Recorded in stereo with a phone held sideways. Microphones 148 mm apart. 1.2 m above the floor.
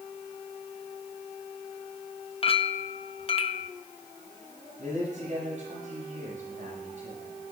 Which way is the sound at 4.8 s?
60° right (ahead or behind).